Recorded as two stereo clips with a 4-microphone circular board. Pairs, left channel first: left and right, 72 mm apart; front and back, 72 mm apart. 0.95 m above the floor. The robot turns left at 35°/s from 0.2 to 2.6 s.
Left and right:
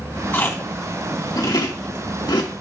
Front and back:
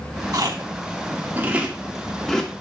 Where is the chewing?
150° left, 1.8 m; by 2.5 s 75° left, 1.8 m.